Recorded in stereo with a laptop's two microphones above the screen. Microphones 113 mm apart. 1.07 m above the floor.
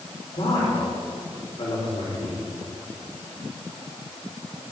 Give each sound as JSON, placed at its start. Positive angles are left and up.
{"t": 0.3, "sound": "a man speaking", "side_deg": 60, "distance_m": 3.5}